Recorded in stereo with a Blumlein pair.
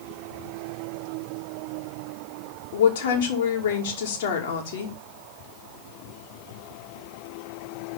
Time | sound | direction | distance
2.7 | a woman speaking | 60° left | 2.5 m